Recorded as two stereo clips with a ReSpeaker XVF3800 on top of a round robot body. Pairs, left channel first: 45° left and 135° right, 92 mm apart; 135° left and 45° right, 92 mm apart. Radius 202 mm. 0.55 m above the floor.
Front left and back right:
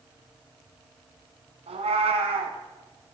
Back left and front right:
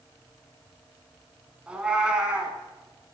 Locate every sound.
1.7 s a cat meowing: 125° right, 1.2 m